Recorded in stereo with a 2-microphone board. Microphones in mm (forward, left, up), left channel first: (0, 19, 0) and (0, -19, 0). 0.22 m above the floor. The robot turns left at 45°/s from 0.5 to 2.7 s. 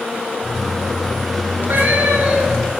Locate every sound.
1.6 s a cat meowing: 75° right, 1.3 m; by 2.7 s 125° right, 1.3 m